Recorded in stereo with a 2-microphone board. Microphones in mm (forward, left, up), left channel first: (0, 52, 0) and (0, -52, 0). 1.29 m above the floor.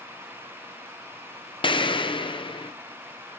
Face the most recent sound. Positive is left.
turn(degrees=50)  # may be behind; listen again after turning